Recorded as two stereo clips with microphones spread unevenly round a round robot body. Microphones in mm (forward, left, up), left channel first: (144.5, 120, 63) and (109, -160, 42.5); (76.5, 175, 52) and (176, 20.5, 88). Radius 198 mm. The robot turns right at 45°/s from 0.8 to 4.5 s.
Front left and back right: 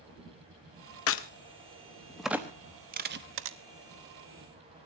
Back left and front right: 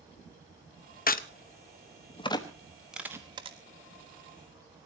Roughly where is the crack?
Behind left.